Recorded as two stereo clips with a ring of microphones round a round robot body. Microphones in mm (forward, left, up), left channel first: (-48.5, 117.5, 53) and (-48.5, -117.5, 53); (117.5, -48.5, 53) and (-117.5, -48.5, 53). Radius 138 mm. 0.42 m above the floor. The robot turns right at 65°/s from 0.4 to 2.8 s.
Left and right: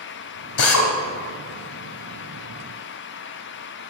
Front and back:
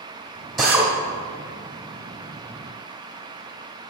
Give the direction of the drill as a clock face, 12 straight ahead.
9 o'clock.